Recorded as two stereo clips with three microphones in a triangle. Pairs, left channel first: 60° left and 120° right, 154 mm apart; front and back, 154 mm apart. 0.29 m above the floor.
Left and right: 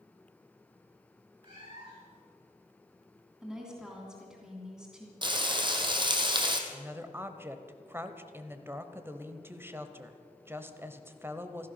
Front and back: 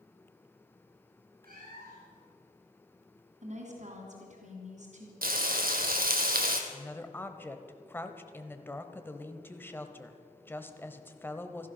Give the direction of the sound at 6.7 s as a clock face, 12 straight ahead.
2 o'clock.